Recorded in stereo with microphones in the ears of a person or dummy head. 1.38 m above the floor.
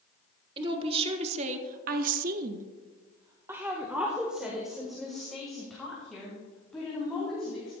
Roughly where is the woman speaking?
Right.